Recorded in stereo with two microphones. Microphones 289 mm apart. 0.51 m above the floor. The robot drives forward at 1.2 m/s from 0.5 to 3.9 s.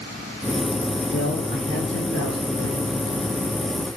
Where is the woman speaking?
45° left (ahead or behind), 8 m; by 2.9 s 60° left (ahead or behind), 6.5 m.